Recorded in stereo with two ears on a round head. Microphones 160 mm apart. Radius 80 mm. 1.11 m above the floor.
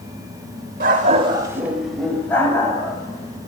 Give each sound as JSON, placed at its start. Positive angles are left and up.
{"t": 0.8, "sound": "a dog barking", "side_deg": -50, "distance_m": 1.3}